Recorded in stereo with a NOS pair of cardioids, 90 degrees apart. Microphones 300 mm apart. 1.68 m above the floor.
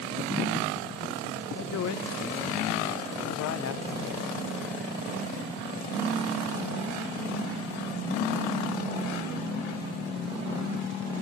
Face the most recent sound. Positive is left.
turn(degrees=55)